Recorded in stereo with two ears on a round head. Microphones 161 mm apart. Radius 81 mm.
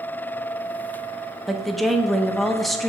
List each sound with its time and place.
1.5 s a woman speaking: centre (ahead or behind), 0.5 m